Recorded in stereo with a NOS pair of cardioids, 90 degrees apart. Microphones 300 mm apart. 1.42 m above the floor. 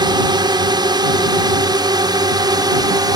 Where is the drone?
15° right.